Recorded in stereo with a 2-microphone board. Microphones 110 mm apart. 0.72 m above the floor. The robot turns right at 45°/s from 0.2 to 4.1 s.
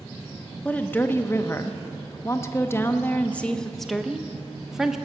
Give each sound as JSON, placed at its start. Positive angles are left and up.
{"t": 0.7, "sound": "a woman speaking", "side_deg": 15, "distance_m": 0.6}